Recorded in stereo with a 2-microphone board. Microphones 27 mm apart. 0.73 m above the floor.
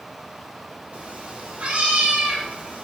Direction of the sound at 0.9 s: 50° right (ahead or behind).